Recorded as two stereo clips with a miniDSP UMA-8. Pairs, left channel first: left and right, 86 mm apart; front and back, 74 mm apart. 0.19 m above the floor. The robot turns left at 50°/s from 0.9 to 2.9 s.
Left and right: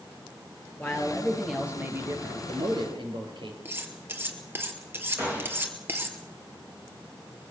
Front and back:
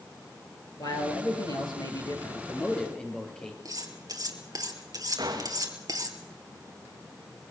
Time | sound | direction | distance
0.8 | a man speaking | 25° left | 4.5 m
3.6 | cutlery clinking | 150° right | 2.5 m
5.2 | a gunshot | 160° right | 6 m